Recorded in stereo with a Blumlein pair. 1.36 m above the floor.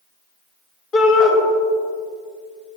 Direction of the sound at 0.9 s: 35° left.